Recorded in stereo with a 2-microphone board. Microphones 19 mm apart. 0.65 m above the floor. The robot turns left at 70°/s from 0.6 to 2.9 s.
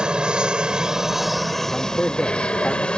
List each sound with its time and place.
0.0 s an aircraft: 125° right; by 3.0 s 75° left
1.7 s a man speaking: 115° left; by 2.9 s 30° left